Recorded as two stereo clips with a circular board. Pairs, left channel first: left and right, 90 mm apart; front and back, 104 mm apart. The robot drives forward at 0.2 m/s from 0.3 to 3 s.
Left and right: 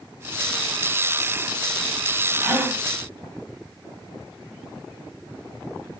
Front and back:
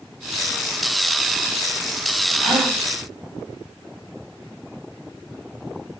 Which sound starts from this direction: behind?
A gasp, at 2.4 s.